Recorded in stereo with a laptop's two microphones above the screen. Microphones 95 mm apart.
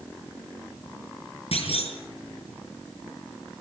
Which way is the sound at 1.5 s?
80° left.